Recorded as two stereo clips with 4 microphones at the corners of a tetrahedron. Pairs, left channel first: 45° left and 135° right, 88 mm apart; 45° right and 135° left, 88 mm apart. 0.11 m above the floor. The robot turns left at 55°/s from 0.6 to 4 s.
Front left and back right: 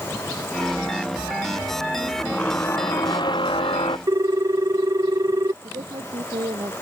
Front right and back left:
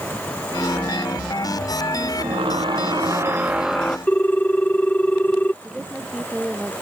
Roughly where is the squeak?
Behind left.